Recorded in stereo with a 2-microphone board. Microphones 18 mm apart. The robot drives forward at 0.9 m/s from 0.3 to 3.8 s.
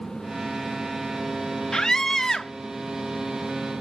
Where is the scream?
35° left (ahead or behind); by 2.5 s 25° left (ahead or behind).